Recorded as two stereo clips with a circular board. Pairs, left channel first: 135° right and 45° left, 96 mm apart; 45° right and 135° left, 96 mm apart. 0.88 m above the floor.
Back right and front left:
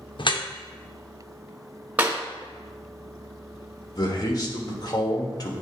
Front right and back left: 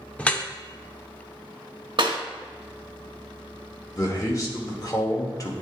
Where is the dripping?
120° right, 0.6 m.